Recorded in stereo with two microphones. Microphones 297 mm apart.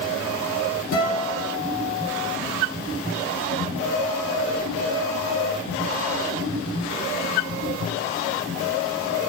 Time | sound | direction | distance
0.9 | a guitar | 80° left | 5 m